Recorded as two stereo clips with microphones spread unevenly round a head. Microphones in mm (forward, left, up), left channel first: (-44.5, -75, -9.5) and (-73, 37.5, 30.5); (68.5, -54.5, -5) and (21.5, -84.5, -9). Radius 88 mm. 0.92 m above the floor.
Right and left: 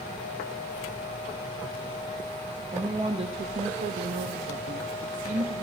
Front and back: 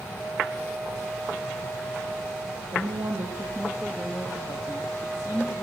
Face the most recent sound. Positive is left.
turn(degrees=75)